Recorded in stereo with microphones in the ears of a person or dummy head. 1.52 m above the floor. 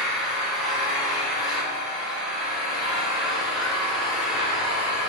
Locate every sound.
0.0 s an engine running: centre (ahead or behind), 3.5 m